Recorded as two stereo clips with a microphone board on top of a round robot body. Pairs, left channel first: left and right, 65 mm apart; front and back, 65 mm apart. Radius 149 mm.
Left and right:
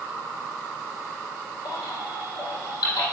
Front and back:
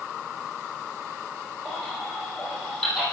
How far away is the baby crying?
About 6 m.